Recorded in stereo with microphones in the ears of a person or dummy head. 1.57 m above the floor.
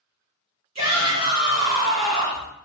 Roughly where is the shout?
Right.